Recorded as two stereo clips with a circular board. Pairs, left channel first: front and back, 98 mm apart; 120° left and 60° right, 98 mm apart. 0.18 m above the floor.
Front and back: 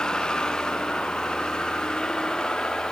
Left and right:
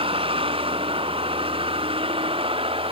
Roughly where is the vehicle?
Right.